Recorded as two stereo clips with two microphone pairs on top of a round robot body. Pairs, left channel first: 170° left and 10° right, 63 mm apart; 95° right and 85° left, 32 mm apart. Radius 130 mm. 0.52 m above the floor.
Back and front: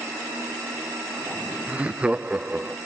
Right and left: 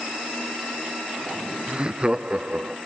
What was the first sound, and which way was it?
Laughter, 30° left.